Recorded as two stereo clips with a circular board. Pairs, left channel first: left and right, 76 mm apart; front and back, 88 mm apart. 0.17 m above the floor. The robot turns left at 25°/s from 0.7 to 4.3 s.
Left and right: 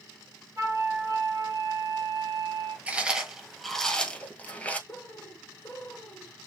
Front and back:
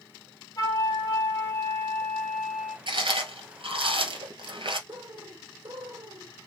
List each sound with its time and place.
0.6 s a flute: 45° right, 2 m; by 2.8 s 95° right, 2 m
2.9 s chewing: 160° right, 1.2 m; by 4.8 s 160° left, 1.2 m
4.9 s a bird: 145° left, 0.8 m